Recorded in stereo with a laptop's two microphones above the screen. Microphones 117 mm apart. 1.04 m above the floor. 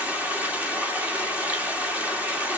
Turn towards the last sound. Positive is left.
turn(degrees=-15)  # may be behind; listen again after turning